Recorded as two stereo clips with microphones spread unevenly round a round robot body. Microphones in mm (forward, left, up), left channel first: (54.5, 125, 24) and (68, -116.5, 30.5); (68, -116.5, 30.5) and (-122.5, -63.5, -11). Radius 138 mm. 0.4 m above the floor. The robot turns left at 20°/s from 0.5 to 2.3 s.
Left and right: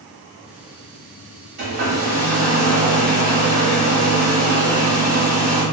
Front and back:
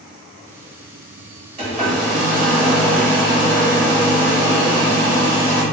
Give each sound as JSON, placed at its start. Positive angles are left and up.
{"t": 1.6, "sound": "a hair dryer", "azimuth_deg": -140, "distance_m": 1.4}